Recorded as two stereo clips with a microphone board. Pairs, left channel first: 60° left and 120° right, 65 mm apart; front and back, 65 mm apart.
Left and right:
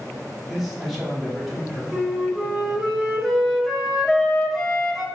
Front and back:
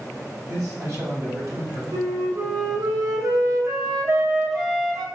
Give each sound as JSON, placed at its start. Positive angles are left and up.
{"t": 0.5, "sound": "a man speaking", "azimuth_deg": 155, "distance_m": 1.4}
{"t": 1.9, "sound": "a flute", "azimuth_deg": 150, "distance_m": 0.8}